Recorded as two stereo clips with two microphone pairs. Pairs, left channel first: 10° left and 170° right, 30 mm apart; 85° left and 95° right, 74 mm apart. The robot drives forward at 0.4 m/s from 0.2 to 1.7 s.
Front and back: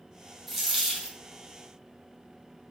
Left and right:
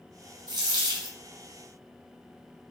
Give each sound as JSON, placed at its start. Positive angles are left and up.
{"t": 0.5, "sound": "a dropped coin", "azimuth_deg": -85, "distance_m": 0.8}